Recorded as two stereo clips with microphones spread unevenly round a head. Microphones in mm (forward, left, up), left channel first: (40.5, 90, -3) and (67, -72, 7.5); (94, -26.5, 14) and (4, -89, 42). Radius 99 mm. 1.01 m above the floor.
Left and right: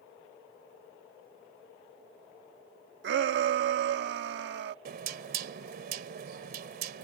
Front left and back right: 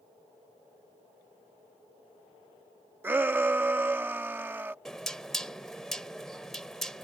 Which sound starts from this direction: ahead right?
Knocking, at 4.8 s.